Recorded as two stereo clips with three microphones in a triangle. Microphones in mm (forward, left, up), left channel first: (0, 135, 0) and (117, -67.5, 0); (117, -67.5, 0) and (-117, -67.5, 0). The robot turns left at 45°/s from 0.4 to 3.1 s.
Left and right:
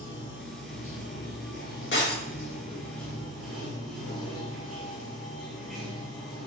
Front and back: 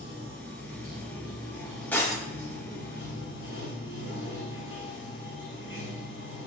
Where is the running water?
150° left, 1.4 m; by 6.5 s 30° left, 1.4 m.